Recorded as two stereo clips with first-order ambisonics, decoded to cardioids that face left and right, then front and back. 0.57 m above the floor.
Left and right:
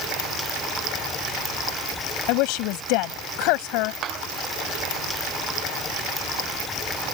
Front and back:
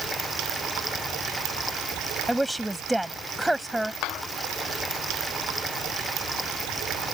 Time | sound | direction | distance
2.3 | a woman speaking | 95° left | ?
4.0 | a clap | 35° right | ?